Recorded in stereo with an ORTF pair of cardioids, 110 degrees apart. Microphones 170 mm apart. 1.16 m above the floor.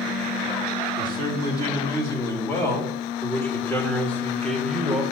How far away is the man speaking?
About 5 m.